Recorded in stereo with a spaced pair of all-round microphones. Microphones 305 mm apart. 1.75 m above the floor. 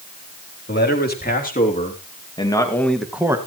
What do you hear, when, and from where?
0.7 s a man speaking: 30° left (ahead or behind), 4 m; by 3.4 s 10° right (ahead or behind), 2.0 m